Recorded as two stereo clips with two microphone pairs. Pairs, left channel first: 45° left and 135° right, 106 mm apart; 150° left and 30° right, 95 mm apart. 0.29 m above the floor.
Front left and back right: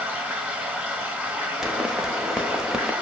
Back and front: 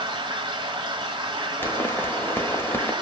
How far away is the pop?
About 0.8 m.